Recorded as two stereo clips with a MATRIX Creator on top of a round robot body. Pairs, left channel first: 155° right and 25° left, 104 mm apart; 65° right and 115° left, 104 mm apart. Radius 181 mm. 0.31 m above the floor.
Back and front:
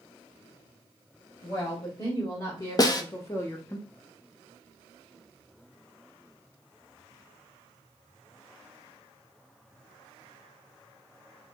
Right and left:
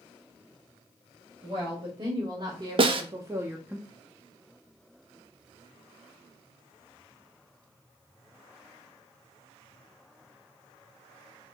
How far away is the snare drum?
About 0.6 m.